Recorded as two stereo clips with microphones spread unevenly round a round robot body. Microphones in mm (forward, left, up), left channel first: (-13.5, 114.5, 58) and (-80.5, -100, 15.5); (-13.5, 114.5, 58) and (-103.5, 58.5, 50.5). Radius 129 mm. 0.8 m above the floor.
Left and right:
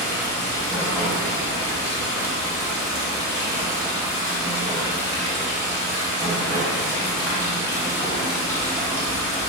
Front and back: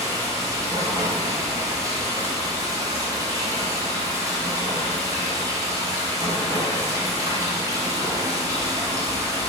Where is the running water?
155° left, 3.5 m.